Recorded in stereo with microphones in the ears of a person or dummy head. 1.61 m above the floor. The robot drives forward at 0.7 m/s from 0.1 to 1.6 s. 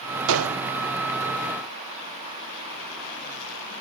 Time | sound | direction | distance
0.3 | a gunshot | 70° right (ahead or behind) | 0.8 m